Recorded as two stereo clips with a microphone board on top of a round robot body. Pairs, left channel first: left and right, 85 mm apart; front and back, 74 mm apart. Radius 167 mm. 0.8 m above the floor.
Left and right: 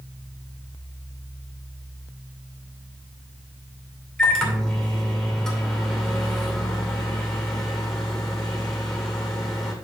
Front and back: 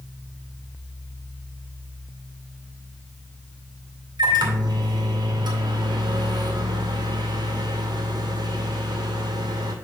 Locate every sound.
4.2 s a microwave: 170° left, 2 m